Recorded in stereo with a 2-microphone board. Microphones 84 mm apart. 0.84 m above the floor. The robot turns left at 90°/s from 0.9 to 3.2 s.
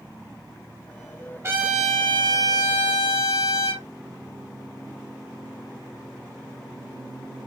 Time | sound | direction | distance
1.4 | a trumpet | 145° right | 3.5 m